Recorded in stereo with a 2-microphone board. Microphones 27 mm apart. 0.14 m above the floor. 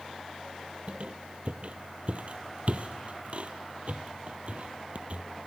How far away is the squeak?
About 1.0 m.